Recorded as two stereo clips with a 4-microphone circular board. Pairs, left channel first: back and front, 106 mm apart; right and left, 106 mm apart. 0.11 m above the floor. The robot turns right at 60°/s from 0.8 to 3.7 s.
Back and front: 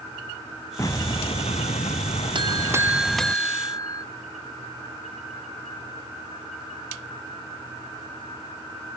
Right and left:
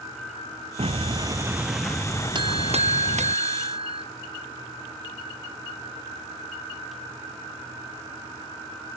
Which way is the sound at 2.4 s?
45° left.